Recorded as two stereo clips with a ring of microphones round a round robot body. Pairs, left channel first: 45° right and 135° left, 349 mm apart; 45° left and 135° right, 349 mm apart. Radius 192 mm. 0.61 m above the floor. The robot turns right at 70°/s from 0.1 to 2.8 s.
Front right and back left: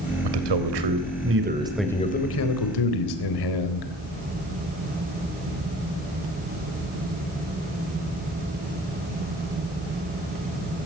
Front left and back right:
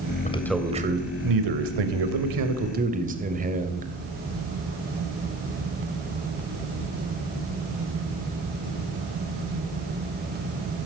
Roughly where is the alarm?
I don't hear an alarm.